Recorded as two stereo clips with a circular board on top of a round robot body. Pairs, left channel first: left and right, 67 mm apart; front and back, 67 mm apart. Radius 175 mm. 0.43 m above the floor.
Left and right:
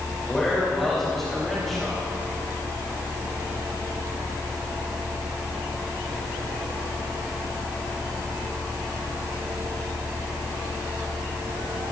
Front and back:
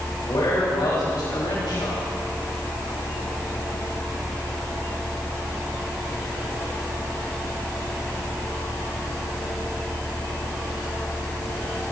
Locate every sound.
0.3 s a man speaking: 5° left, 3.5 m